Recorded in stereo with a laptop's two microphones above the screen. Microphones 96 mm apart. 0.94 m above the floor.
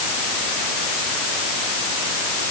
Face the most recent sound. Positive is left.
No sound to turn to.